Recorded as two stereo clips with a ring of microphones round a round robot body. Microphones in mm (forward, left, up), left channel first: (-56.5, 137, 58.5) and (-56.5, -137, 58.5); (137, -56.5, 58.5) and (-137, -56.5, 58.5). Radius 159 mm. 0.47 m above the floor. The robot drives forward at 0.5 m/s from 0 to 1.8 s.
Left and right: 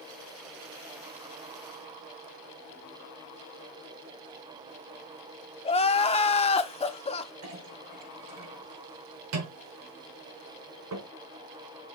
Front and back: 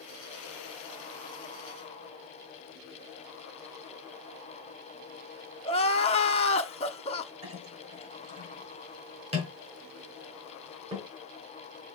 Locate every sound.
5.7 s crying: 45° left, 0.8 m
7.4 s a clink: 110° right, 4.5 m